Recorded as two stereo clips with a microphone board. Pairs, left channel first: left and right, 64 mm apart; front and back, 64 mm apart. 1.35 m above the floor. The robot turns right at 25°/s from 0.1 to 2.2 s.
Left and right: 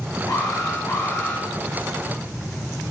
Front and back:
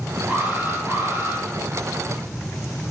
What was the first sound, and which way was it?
An alarm, 115° left.